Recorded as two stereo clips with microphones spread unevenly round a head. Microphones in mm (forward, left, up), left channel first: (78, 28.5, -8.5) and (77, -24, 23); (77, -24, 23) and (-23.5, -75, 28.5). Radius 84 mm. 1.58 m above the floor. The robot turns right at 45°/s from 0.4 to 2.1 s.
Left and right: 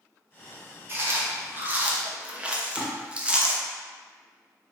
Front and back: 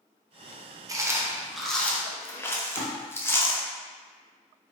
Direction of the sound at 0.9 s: 95° right.